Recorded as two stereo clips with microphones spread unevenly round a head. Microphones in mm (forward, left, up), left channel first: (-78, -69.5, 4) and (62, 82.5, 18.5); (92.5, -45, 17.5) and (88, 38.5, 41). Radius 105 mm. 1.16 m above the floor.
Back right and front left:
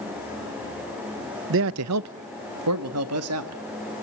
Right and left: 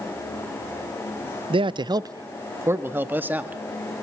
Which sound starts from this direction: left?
A man speaking, at 1.5 s.